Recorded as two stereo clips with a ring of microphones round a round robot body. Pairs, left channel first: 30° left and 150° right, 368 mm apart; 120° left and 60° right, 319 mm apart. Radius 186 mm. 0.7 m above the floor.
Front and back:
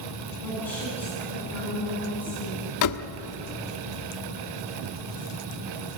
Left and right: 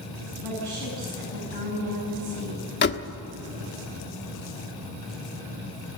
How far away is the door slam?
About 1.2 m.